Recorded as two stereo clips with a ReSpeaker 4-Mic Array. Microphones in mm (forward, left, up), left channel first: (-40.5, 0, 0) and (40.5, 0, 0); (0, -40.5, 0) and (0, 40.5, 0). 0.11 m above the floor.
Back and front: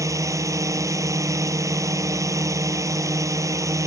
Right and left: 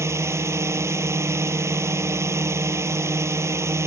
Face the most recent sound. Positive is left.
turn(degrees=40)